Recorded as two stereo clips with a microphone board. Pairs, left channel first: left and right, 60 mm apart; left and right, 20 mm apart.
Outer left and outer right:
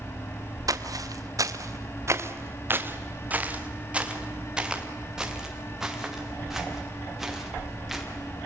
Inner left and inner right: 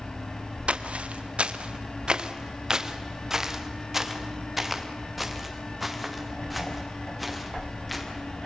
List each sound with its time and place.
0.7 s footsteps: 85° right, 2 m; by 8.0 s centre (ahead or behind), 7.5 m